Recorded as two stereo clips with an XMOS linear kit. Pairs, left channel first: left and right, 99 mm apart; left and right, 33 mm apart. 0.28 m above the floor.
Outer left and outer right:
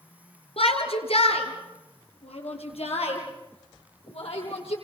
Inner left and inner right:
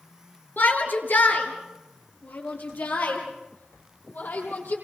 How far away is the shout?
About 4.5 m.